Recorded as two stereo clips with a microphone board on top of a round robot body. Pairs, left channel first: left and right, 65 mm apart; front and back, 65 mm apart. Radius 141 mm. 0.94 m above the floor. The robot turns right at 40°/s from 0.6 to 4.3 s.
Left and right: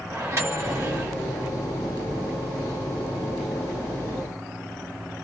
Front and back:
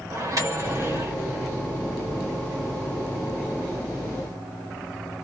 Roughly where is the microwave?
Behind right.